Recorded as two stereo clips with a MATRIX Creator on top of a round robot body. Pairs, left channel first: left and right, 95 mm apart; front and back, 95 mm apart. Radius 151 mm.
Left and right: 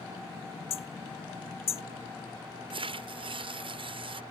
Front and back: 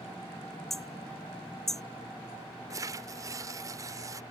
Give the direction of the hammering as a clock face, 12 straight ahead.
9 o'clock.